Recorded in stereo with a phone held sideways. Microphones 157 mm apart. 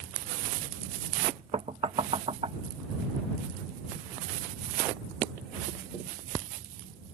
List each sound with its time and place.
1.5 s knocking: 35° right (ahead or behind)